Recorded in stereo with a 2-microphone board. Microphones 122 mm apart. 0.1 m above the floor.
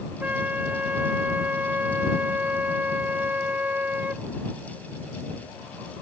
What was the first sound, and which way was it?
A flute, 15° right (ahead or behind).